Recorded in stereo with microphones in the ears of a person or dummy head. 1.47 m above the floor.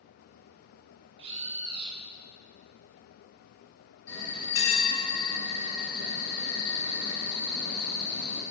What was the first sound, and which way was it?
A bird, 35° right (ahead or behind).